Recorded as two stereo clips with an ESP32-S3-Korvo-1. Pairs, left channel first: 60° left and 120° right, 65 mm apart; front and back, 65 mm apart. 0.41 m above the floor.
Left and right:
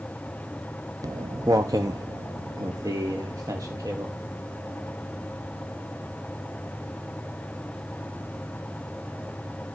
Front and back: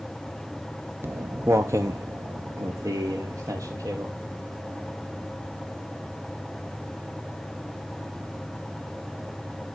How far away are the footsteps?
About 0.8 m.